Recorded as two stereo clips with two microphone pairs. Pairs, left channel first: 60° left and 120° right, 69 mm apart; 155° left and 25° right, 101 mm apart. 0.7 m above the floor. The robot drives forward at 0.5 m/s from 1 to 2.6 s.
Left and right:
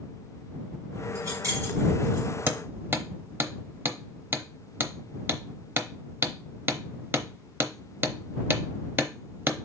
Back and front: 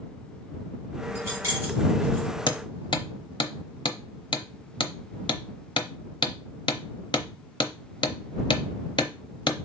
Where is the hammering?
175° right, 0.7 m.